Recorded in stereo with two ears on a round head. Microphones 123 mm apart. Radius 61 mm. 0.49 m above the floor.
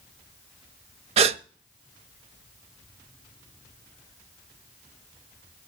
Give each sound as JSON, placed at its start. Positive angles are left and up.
{"t": 1.2, "sound": "a gasp", "side_deg": -45, "distance_m": 0.6}